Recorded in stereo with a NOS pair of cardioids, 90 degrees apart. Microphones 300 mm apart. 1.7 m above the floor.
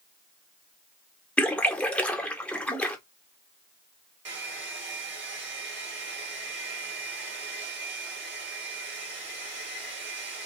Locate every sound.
1.4 s a splash: 5° left, 1.1 m
4.2 s a hair dryer: 40° right, 1.8 m